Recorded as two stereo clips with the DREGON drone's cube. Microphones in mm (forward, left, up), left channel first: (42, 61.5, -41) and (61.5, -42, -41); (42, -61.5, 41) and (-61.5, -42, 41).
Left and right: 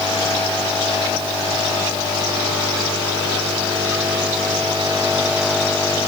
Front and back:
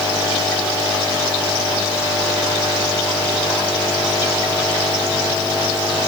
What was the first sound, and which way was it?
Only background noise.